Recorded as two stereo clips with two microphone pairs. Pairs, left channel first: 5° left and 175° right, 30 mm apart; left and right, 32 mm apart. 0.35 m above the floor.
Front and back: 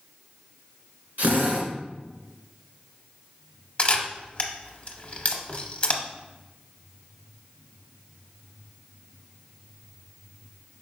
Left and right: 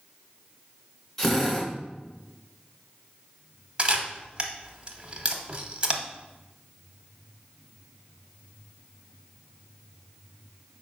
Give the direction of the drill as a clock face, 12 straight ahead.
6 o'clock.